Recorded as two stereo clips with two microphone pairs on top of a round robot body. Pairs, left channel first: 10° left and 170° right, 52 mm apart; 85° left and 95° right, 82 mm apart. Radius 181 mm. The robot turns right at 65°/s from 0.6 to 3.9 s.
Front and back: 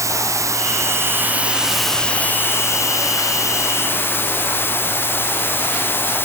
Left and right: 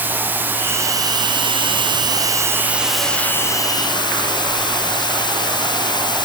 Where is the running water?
160° right, 0.8 m; by 6.2 s 55° left, 0.8 m.